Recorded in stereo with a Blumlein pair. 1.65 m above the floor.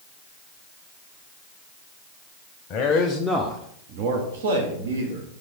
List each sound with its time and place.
2.7 s a man speaking: 35° left, 0.7 m; by 5.3 s 75° right, 1.3 m